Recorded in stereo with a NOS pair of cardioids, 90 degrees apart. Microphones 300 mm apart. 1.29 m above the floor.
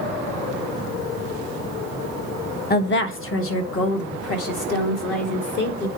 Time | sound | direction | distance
2.7 | a woman speaking | 35° left | 0.7 m